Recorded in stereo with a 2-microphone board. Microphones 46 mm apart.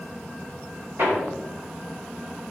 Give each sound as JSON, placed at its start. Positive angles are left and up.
{"t": 1.0, "sound": "hammering", "side_deg": -65, "distance_m": 3.5}